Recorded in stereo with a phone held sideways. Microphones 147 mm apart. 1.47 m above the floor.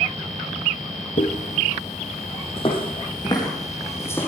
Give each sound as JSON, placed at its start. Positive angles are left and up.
{"t": 1.2, "sound": "footsteps", "side_deg": 60, "distance_m": 2.5}